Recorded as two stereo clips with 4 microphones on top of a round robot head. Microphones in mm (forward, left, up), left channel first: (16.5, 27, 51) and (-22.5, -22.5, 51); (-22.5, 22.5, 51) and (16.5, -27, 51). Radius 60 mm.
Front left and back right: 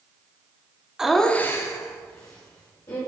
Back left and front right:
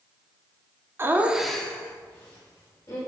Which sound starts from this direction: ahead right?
Laughter, at 1.0 s.